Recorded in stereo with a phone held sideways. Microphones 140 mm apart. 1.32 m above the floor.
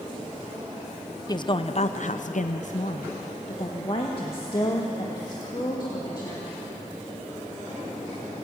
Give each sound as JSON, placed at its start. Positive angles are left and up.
{"t": 1.3, "sound": "a woman speaking", "side_deg": 30, "distance_m": 0.7}